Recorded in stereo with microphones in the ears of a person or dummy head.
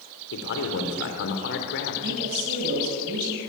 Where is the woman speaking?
55° right (ahead or behind), 6 m.